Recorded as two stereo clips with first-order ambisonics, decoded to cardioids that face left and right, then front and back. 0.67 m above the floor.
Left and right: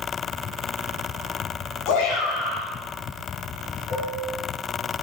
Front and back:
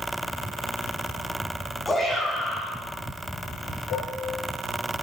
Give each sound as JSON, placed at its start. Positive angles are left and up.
{"t": 1.9, "sound": "a shout", "azimuth_deg": 85, "distance_m": 6.5}
{"t": 3.9, "sound": "dishes clattering", "azimuth_deg": 35, "distance_m": 7.5}